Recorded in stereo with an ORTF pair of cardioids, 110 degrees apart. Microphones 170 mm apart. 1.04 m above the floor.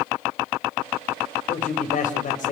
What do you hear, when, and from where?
1.5 s a man speaking: 50° left, 4.5 m